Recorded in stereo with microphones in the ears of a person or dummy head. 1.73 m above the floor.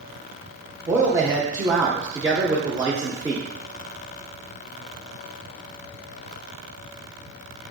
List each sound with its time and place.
0.9 s a man speaking: 10° right (ahead or behind), 0.6 m